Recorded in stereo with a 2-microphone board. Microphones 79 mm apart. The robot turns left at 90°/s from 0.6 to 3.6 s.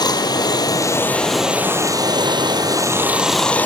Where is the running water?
70° left, 2.5 m; by 3.7 s 160° left, 2.5 m.